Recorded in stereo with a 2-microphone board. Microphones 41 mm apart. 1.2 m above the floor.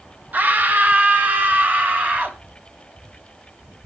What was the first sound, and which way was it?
A scream, 45° right (ahead or behind).